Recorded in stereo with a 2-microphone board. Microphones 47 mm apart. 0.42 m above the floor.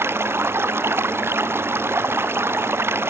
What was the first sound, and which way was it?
Running water, 60° right (ahead or behind).